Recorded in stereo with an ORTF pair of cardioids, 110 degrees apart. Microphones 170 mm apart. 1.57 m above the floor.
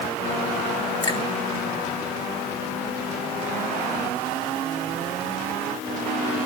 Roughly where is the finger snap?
Ahead left.